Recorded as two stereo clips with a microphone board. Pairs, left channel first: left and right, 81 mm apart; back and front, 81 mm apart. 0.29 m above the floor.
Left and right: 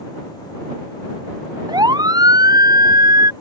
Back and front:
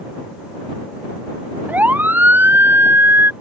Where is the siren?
70° right; by 3.3 s 60° right.